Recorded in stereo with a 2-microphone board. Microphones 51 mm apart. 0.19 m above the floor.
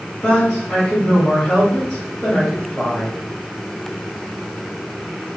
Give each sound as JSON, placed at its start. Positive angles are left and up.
{"t": 0.2, "sound": "a woman speaking", "side_deg": 10, "distance_m": 2.0}